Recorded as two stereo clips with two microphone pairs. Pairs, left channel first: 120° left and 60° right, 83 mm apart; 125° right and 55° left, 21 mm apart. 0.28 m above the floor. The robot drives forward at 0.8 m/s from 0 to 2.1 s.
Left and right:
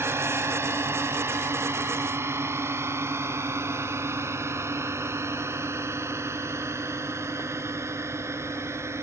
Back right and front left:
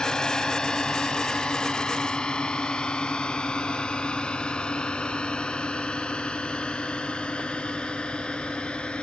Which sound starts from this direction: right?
A drone, at 0.0 s.